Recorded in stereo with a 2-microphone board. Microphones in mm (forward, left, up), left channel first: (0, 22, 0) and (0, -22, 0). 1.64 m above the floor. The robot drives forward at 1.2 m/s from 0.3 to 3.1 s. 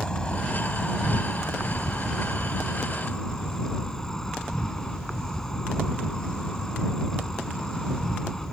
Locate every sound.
0.0 s an insect: 20° left (ahead or behind); by 8.5 s 15° left (ahead or behind)